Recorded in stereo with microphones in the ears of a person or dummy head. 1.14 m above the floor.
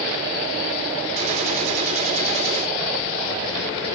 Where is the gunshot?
35° right (ahead or behind), 3 m.